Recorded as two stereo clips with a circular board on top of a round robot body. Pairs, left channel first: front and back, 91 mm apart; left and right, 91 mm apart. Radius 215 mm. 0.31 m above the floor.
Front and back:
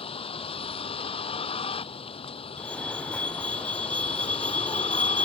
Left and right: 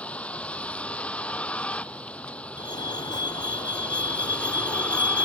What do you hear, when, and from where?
0.0 s a vehicle: 15° left
2.6 s a fire alarm: 75° left